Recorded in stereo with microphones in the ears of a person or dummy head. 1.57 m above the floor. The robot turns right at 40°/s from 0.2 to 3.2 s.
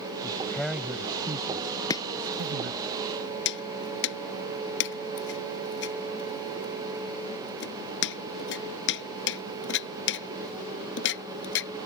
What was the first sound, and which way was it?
A man speaking, 160° left.